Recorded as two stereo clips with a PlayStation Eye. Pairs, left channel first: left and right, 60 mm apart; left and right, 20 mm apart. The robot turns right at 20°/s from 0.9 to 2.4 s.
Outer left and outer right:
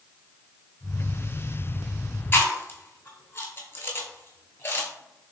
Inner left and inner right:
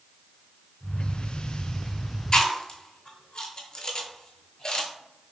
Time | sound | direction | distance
2.3 | chewing | 40° left (ahead or behind) | 0.8 m